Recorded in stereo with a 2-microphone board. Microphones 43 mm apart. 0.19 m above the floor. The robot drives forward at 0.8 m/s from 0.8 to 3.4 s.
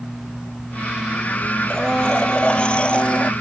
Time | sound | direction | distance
1.7 | a blender | 20° left (ahead or behind) | ?